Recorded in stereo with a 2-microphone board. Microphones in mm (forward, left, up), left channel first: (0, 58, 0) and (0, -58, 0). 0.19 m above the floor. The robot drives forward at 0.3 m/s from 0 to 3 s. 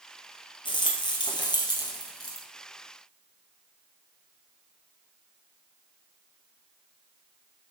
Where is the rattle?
45° left (ahead or behind), 1.4 m; by 2.5 s 35° left (ahead or behind), 1.8 m.